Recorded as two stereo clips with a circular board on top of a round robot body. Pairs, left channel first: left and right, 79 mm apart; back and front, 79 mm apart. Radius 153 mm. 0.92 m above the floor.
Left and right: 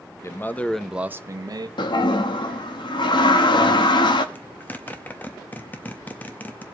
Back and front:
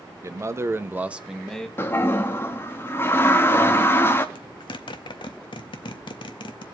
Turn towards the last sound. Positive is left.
turn(degrees=160)